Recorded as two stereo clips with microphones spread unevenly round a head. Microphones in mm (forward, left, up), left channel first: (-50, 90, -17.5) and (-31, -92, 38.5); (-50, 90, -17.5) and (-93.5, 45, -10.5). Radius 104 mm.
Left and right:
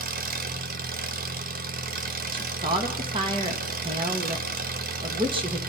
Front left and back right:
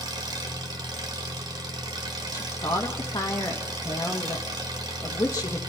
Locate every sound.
0.0 s an engine running: 125° right, 1.2 m
2.3 s a woman speaking: 15° right, 1.9 m